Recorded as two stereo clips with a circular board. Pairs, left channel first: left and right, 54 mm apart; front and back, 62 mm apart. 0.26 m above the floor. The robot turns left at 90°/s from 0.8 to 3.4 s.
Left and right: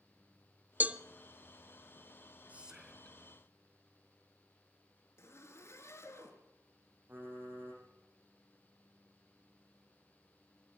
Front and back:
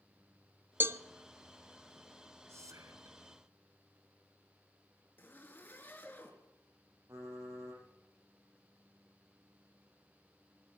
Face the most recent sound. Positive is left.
turn(degrees=-140)